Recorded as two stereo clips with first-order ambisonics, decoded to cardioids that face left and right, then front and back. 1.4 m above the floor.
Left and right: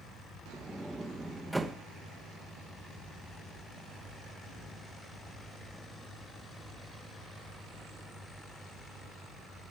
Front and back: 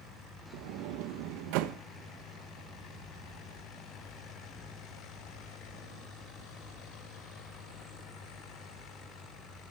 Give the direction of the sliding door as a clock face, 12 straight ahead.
6 o'clock.